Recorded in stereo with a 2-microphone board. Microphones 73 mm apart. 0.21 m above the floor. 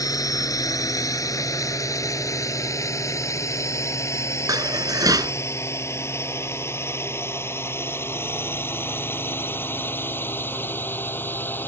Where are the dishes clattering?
60° right (ahead or behind).